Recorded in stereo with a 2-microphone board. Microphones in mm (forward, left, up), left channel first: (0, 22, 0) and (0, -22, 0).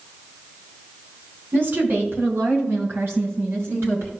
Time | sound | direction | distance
1.5 | a woman speaking | 50° right (ahead or behind) | 4 m